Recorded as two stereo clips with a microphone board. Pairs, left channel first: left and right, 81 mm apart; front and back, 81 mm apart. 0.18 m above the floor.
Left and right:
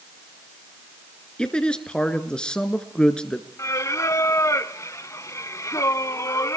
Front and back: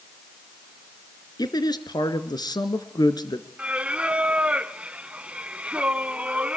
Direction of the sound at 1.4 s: 10° left.